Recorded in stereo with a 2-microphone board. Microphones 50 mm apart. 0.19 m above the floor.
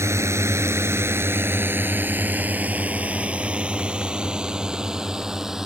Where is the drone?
65° right (ahead or behind); by 5.7 s 10° right (ahead or behind).